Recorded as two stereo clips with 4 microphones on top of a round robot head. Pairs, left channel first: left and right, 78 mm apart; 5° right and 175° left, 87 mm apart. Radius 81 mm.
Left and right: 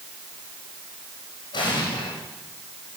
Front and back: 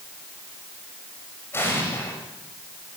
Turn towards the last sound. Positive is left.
turn(degrees=60)